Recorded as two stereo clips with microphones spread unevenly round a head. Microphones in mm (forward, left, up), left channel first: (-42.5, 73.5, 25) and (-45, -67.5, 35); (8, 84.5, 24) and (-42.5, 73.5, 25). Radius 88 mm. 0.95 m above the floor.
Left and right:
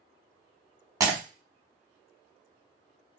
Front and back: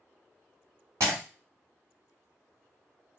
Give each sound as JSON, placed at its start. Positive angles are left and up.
{"t": 1.0, "sound": "breaking glass", "azimuth_deg": -150, "distance_m": 1.4}